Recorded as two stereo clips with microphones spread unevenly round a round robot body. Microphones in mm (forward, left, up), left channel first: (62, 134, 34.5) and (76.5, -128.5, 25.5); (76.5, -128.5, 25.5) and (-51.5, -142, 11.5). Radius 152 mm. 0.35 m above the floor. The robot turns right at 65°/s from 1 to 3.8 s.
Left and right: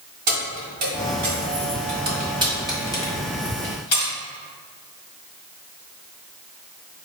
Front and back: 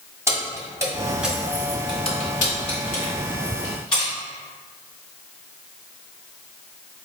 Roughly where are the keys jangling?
Right.